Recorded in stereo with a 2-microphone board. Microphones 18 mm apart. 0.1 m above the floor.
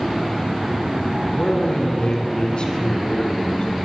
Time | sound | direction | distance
1.4 | a man speaking | 55° left (ahead or behind) | 3.5 m